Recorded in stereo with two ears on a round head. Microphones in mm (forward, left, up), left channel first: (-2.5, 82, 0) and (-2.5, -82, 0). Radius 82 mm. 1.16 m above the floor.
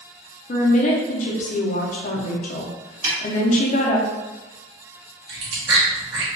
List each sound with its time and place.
0.5 s a woman speaking: 40° left (ahead or behind), 0.6 m
3.0 s a snare drum: 45° right (ahead or behind), 1.5 m
5.3 s chewing: 65° right (ahead or behind), 1.2 m